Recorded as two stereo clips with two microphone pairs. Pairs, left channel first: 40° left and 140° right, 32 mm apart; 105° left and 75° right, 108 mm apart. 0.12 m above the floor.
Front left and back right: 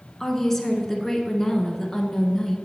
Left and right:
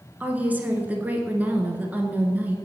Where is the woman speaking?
20° right, 1.2 m.